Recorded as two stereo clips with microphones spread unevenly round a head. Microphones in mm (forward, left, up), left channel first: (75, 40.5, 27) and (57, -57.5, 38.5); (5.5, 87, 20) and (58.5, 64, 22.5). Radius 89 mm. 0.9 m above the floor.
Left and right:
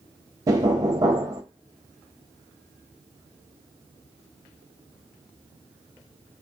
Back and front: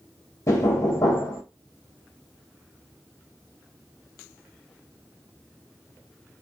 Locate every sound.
0.5 s knocking: 165° right, 0.5 m